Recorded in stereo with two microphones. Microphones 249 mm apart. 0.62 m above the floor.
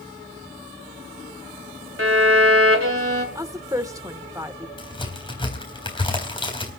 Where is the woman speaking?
15° right (ahead or behind), 1.3 m.